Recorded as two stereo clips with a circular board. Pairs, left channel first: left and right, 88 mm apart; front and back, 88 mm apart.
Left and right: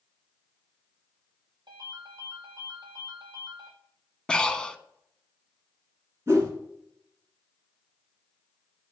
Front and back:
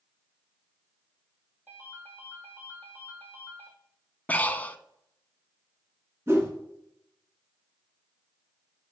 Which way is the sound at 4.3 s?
25° left.